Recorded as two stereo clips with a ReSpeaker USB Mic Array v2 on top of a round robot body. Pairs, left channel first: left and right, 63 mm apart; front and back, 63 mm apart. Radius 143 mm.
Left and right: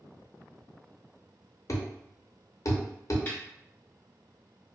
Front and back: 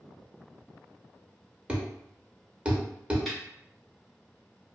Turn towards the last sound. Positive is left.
turn(degrees=80)